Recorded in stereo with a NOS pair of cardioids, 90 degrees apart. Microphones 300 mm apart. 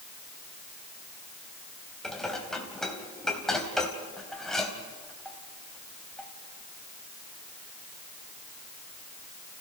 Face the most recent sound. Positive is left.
turn(degrees=0)